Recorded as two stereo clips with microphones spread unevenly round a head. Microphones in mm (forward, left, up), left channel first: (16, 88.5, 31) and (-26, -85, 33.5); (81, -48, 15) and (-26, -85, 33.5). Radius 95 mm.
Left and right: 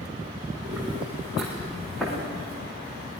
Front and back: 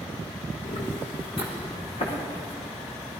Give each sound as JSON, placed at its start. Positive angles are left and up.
{"t": 0.6, "sound": "footsteps", "azimuth_deg": -25, "distance_m": 5.0}